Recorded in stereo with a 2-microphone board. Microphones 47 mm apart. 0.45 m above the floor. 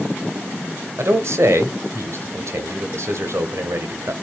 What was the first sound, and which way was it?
A man speaking, 65° right (ahead or behind).